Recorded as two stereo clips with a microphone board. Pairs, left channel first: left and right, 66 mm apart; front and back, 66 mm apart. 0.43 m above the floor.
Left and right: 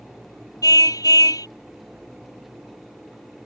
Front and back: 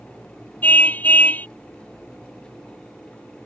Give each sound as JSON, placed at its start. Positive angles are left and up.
{"t": 0.6, "sound": "a car horn", "azimuth_deg": 65}